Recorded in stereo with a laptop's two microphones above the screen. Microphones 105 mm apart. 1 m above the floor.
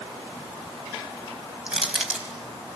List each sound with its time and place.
1.7 s crushing: 10° right (ahead or behind), 5 m